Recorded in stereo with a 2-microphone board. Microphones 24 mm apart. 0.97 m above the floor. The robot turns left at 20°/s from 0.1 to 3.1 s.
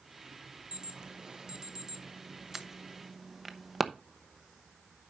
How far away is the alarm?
About 0.8 m.